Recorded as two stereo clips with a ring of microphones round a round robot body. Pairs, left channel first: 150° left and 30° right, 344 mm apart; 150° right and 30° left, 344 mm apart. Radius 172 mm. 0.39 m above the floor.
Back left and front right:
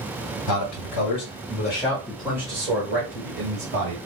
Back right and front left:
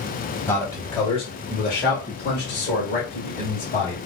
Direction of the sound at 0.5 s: 125° left.